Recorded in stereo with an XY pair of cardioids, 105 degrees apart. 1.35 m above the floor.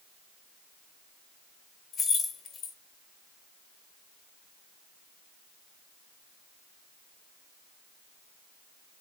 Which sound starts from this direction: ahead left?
Keys jangling, at 1.9 s.